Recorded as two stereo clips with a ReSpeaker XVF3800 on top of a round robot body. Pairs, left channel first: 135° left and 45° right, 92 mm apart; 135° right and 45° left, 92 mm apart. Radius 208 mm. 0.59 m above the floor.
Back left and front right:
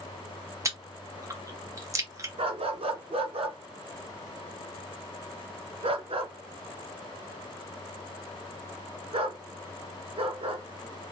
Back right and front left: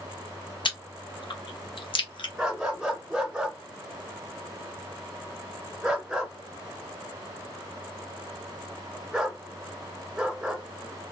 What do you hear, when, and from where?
0.7 s chewing: 100° right, 1.3 m
2.4 s a dog barking: 35° right, 1.5 m